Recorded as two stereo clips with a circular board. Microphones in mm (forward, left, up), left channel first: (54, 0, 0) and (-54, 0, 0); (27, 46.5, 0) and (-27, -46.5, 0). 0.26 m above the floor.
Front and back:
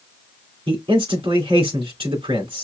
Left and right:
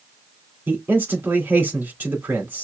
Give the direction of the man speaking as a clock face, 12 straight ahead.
6 o'clock.